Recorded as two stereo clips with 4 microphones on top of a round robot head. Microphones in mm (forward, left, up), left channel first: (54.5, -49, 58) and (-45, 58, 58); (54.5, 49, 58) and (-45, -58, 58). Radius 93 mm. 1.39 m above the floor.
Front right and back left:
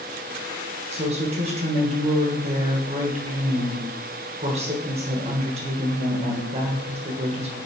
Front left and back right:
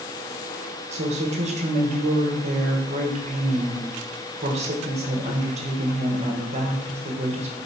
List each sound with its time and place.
0.9 s a woman speaking: straight behind, 1.5 m